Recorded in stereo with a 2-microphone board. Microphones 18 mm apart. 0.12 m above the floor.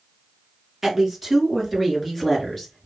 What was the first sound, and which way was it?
A woman speaking, 10° right (ahead or behind).